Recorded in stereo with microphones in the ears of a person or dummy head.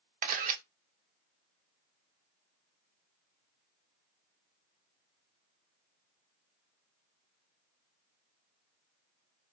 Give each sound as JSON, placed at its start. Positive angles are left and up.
{"t": 0.2, "sound": "a camera shutter", "side_deg": -50, "distance_m": 0.7}